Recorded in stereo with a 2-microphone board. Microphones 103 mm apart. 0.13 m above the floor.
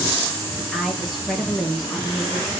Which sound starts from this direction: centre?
A woman speaking, at 0.6 s.